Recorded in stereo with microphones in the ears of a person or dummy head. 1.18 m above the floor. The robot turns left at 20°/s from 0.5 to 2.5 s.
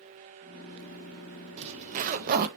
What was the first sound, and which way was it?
A zipper, 30° right (ahead or behind).